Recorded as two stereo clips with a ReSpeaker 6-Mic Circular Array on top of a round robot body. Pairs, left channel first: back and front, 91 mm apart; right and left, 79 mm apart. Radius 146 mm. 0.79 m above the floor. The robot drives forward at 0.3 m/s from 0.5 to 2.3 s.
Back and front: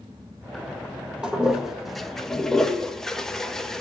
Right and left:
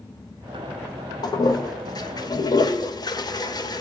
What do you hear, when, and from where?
1.2 s a toilet flushing: 80° right, 1.3 m; by 3.8 s 95° right, 1.3 m